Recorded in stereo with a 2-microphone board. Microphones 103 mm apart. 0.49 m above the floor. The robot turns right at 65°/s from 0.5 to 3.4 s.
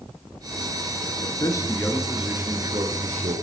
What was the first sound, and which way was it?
A man speaking, 125° left.